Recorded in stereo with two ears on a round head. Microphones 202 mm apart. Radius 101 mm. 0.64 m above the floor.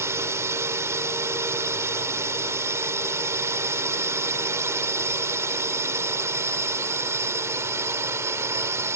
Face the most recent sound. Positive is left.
turn(degrees=-15)  # may be behind; listen again after turning